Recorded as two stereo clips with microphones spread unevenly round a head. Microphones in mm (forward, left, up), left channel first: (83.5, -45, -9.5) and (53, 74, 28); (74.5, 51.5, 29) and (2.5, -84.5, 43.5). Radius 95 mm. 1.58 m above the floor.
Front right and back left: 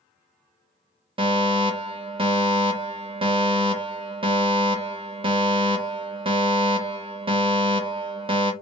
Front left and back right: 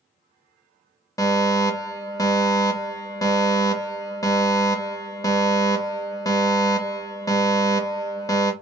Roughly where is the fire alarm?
Left.